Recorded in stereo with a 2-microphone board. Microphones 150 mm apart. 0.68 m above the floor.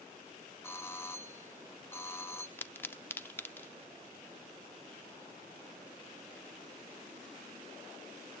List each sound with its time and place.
0.6 s a doorbell: 15° left (ahead or behind), 1.0 m
2.6 s a pop: 15° left (ahead or behind), 0.6 m